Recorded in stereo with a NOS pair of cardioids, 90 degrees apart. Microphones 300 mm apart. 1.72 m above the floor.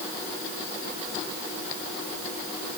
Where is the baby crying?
I don't hear a baby crying.